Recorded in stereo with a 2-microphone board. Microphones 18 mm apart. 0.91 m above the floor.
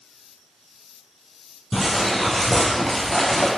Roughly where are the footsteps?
Centre.